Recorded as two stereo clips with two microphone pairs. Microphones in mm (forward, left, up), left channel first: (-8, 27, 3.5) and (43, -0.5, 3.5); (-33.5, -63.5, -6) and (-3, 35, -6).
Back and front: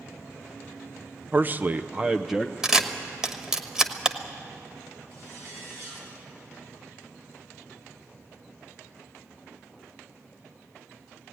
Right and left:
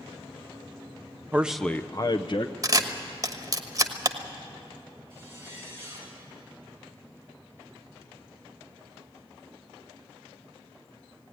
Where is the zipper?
5° left, 5 m.